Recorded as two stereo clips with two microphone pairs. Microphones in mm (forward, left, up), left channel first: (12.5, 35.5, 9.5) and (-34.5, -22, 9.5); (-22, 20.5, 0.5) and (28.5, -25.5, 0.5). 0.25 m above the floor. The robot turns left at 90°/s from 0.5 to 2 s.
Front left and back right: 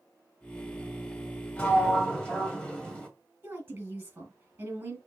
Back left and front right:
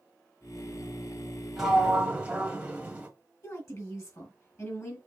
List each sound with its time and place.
1.6 s a sliding door: 35° left, 1.3 m; by 3.1 s 5° right, 1.3 m
3.4 s a woman speaking: 175° left, 2.5 m